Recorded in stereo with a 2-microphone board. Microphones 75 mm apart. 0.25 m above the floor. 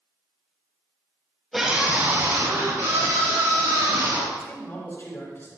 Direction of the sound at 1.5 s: Centre (ahead or behind).